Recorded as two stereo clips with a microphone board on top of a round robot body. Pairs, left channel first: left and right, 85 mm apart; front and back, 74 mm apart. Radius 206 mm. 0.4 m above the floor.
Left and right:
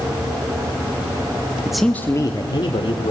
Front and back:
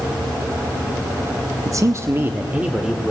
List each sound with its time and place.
1.6 s a man speaking: 165° right, 1.1 m; by 3.1 s 100° left, 2 m